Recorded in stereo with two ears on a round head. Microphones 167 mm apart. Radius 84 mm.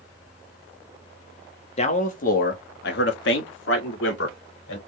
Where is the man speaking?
35° left (ahead or behind), 1.1 m; by 4.8 s 75° left (ahead or behind), 2 m.